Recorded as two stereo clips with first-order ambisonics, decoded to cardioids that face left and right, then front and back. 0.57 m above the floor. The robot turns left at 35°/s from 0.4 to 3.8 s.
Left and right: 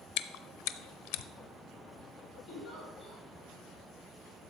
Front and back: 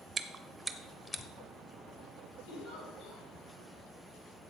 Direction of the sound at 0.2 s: 105° left.